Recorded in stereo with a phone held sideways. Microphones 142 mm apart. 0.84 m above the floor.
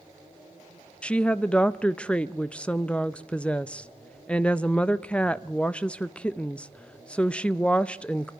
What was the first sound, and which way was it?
A woman speaking, 10° left (ahead or behind).